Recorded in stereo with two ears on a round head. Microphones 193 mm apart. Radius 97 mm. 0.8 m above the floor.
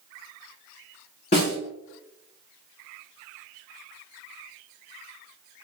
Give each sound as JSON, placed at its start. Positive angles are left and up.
{"t": 1.3, "sound": "a snare drum", "side_deg": 30, "distance_m": 1.6}